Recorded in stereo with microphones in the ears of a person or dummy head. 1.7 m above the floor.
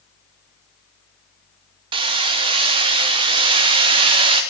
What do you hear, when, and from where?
1.9 s hammering: 25° right (ahead or behind), 0.9 m